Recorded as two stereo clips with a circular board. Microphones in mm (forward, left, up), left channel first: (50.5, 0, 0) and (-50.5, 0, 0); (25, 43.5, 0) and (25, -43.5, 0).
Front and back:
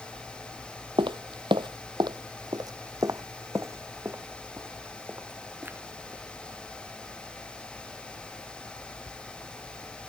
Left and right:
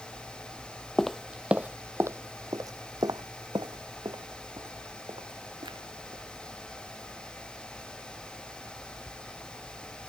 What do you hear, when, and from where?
1.0 s footsteps: 175° left; by 6.2 s 110° right